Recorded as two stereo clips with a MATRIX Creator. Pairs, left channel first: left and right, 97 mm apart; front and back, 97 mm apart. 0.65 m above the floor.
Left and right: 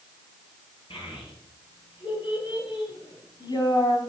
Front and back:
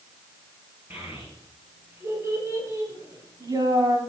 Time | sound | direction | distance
0.9 | a child speaking | 115° left | 6.5 m